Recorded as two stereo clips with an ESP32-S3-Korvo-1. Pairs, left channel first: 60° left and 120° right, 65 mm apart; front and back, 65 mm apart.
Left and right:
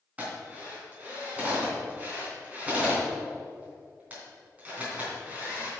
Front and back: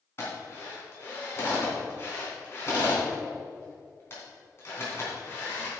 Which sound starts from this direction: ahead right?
A drill, at 0.2 s.